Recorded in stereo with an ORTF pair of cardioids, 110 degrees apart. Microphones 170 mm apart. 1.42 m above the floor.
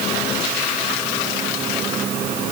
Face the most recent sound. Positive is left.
No sound to turn to.